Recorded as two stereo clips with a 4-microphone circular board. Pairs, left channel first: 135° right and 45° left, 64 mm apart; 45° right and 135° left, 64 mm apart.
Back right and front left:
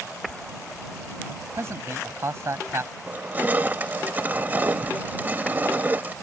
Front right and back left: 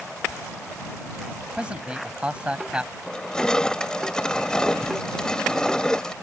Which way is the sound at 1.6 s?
70° left.